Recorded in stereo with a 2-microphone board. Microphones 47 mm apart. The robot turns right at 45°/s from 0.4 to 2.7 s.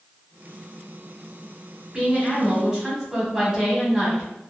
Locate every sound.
1.9 s a woman speaking: 20° right (ahead or behind), 1.2 m; by 4.3 s 15° right (ahead or behind), 1.2 m